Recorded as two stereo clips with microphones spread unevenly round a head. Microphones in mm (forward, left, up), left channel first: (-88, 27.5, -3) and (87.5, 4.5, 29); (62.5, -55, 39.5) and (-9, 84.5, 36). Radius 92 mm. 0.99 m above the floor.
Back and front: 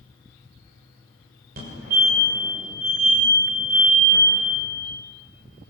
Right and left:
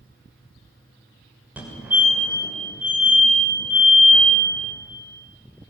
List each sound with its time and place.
1.6 s a fire alarm: 35° left, 6.5 m